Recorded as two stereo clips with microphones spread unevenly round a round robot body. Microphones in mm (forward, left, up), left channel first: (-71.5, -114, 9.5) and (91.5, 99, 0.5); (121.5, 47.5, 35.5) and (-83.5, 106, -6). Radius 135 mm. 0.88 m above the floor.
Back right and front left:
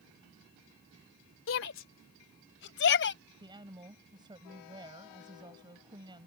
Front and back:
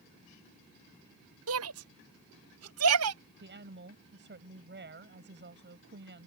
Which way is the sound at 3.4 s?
130° left.